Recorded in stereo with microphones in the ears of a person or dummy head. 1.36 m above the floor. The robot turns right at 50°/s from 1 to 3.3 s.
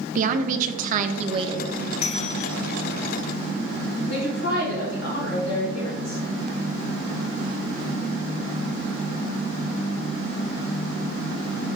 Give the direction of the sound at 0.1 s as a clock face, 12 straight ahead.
2 o'clock.